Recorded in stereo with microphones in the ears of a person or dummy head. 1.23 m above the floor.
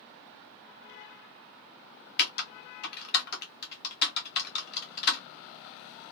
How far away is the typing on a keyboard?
About 0.8 m.